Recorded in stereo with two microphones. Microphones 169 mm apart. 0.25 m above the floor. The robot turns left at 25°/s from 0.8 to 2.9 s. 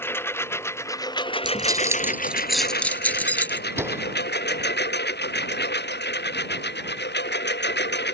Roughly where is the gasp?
I don't hear a gasp.